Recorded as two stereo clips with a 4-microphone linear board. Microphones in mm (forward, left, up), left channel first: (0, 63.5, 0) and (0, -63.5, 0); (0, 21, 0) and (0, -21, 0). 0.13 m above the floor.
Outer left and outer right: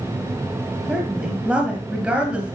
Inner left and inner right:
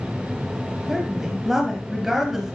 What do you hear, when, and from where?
0.9 s a woman speaking: 10° right (ahead or behind), 2.5 m